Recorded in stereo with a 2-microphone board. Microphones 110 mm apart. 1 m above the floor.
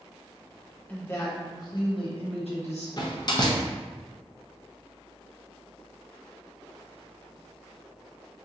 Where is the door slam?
40° left (ahead or behind), 0.6 m.